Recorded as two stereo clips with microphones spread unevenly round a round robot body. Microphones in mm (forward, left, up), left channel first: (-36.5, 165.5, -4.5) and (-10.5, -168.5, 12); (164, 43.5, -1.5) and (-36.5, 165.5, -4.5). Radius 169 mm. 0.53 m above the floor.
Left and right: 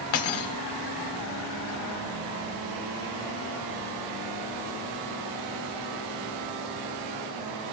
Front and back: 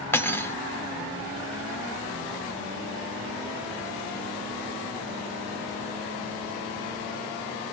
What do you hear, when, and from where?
0.1 s cutlery clinking: 50° left, 0.8 m